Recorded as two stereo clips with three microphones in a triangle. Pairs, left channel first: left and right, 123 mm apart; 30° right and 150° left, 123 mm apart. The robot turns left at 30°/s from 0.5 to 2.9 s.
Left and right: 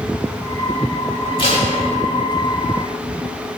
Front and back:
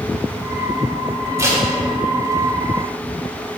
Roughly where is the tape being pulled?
Left.